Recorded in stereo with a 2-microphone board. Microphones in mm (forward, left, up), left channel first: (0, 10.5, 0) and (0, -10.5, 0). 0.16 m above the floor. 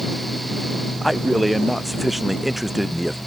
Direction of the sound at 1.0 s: 5° left (ahead or behind).